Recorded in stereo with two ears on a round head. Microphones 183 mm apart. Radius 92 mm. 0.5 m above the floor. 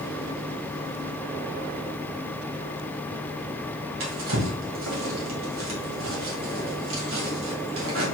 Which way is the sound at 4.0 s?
75° right (ahead or behind).